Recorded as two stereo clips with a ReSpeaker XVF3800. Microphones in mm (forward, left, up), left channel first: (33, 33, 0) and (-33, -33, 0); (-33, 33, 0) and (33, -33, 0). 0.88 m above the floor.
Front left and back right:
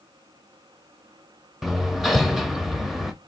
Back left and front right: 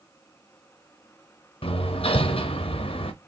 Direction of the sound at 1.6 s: 135° left.